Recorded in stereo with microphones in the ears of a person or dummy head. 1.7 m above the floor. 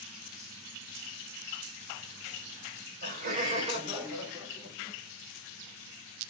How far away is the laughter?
About 1.5 m.